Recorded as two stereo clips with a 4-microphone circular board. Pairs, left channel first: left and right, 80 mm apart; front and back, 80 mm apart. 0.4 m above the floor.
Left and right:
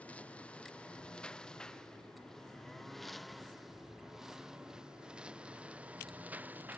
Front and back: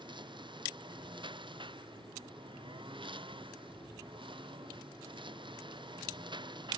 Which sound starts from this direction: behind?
A lawn mower, at 0.0 s.